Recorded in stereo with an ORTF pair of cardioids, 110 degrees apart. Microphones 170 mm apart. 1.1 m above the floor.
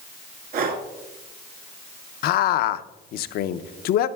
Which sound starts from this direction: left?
A man speaking, at 2.2 s.